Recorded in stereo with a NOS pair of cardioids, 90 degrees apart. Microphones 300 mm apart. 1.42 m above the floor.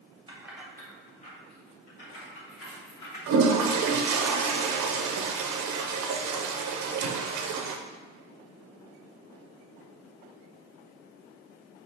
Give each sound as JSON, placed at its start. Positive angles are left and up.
{"t": 0.3, "sound": "keys jangling", "azimuth_deg": -15, "distance_m": 1.0}
{"t": 3.3, "sound": "a toilet flushing", "azimuth_deg": -70, "distance_m": 0.6}